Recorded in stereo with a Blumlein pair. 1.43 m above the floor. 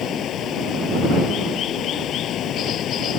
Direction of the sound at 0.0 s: 30° left.